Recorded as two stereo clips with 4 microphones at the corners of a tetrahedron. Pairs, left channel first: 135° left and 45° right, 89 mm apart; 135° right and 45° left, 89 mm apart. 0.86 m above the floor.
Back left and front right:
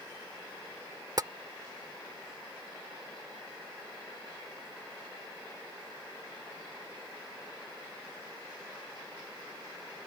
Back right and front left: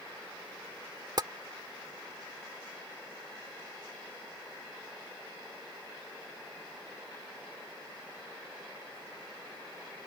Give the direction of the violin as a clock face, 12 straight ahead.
I don't hear a violin.